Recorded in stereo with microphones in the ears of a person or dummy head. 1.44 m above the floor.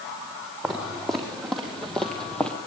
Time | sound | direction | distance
0.6 | footsteps | 5° left (ahead or behind) | 4.5 m